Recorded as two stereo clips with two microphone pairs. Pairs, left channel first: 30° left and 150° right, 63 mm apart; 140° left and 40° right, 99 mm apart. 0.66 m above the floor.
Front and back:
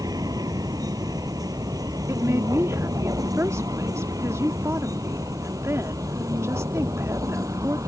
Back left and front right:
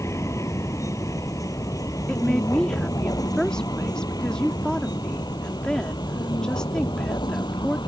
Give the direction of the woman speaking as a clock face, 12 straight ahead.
5 o'clock.